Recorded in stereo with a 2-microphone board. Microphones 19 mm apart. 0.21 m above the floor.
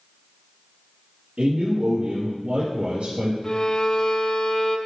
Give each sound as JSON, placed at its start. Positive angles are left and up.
{"t": 1.4, "sound": "a man speaking", "side_deg": -65, "distance_m": 3.5}
{"t": 3.4, "sound": "a violin", "side_deg": 40, "distance_m": 0.8}